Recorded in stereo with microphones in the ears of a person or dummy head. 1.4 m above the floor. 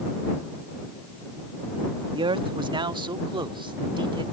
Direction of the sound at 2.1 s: 20° right (ahead or behind).